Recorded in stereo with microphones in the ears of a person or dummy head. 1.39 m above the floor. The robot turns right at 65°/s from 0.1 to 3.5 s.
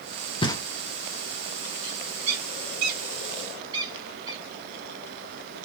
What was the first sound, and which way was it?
Knocking, 25° left (ahead or behind).